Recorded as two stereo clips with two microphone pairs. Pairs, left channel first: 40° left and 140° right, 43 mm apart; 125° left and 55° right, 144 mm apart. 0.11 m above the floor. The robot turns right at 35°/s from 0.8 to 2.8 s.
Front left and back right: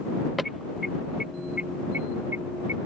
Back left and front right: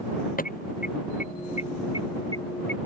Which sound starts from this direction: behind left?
An alarm, at 0.4 s.